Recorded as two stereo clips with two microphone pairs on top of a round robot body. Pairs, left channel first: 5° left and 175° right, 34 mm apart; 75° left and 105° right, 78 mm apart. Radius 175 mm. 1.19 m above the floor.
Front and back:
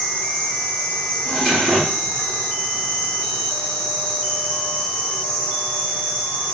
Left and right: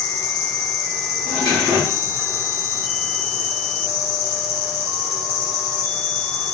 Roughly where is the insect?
Right.